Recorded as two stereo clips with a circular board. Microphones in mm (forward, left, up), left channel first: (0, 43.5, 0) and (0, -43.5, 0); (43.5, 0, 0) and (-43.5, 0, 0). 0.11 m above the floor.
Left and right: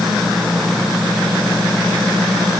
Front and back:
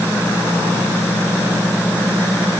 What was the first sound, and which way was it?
Only background noise.